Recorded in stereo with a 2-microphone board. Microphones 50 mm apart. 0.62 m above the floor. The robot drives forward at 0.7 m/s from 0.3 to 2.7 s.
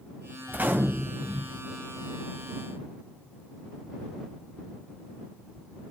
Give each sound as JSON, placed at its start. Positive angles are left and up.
{"t": 0.5, "sound": "a gunshot", "side_deg": -40, "distance_m": 0.6}